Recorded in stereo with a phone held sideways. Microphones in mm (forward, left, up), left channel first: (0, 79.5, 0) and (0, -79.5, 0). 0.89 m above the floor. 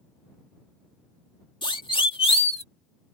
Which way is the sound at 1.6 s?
30° left (ahead or behind).